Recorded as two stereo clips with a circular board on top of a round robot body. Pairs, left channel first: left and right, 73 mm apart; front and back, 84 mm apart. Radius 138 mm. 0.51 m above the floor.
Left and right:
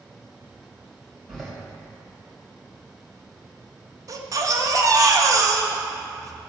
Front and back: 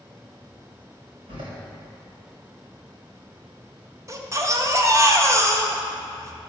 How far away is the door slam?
About 3 m.